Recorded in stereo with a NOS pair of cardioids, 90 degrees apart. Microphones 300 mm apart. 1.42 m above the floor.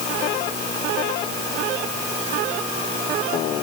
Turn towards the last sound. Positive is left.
No sound to turn to.